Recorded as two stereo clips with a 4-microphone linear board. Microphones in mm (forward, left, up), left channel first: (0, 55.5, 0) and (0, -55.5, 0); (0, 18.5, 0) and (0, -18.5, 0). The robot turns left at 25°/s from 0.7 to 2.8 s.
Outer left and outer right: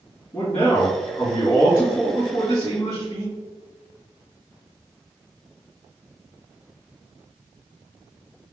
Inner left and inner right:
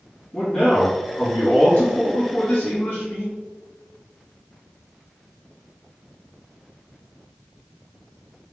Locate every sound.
0.3 s a man speaking: 145° left, 1.9 m; by 3.3 s 90° left, 1.9 m